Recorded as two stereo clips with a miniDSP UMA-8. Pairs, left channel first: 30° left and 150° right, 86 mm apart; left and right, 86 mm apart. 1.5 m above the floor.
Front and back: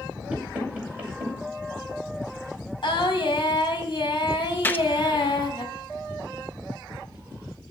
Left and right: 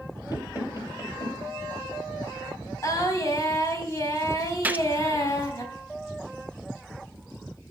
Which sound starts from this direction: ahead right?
A gunshot, at 4.6 s.